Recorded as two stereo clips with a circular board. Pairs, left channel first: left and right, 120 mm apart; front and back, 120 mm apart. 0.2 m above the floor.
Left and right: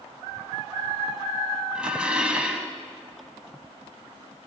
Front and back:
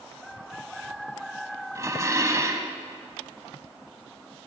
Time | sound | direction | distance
1.8 | dishes clattering | 160° right | 0.7 m